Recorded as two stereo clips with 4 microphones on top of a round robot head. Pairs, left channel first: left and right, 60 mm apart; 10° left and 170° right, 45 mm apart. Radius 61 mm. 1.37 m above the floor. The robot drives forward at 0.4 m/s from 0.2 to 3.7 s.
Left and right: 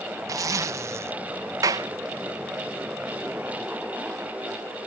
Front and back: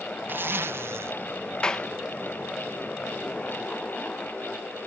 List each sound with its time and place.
0.3 s a zipper: 120° right; by 1.1 s 140° right
1.6 s a clap: 70° right; by 1.9 s 75° right